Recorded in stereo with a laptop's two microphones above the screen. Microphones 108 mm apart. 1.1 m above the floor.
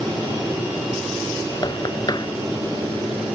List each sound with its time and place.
1.6 s knocking: 40° left (ahead or behind)